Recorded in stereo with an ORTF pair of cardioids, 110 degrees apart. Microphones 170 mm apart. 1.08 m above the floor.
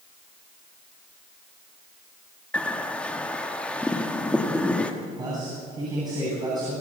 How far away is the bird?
About 1.8 m.